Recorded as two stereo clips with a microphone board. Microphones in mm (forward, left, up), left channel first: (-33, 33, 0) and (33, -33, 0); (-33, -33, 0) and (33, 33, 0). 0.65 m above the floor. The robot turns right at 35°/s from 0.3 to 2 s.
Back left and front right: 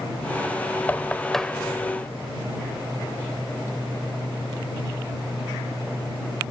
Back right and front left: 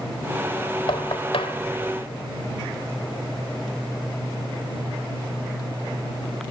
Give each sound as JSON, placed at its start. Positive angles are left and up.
{"t": 0.9, "sound": "knocking", "azimuth_deg": -155}